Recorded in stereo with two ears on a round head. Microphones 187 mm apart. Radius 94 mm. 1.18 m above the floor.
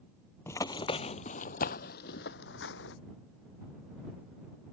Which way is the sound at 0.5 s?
15° left (ahead or behind).